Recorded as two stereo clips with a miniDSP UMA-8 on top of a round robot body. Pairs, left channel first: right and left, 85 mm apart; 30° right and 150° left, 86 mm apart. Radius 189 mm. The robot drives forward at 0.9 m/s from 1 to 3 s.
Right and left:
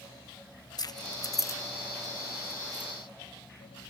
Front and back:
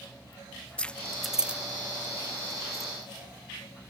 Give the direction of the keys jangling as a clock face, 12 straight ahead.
3 o'clock.